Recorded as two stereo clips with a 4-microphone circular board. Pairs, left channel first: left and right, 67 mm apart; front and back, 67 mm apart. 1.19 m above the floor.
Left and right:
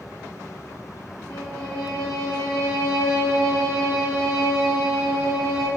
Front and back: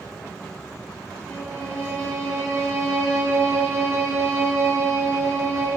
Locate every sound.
1.3 s a violin: 55° left, 1.7 m